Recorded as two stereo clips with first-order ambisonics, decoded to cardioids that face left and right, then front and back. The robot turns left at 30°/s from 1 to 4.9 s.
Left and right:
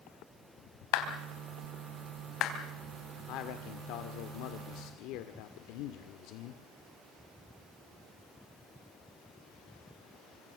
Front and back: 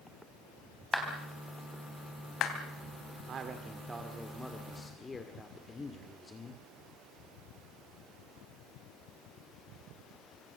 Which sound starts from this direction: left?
A clap, at 0.9 s.